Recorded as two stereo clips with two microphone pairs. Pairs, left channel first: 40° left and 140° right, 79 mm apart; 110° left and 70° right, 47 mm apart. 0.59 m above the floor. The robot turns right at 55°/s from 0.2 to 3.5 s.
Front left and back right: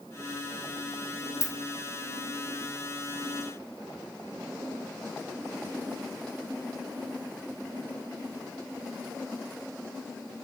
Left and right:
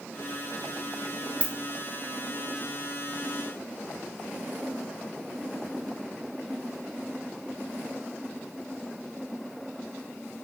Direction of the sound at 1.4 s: 5° right.